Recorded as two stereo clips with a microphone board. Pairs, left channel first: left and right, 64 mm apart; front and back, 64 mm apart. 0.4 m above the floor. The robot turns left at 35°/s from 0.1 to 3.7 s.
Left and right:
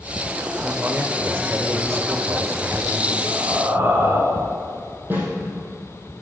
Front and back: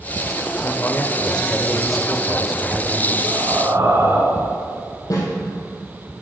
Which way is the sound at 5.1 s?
35° right.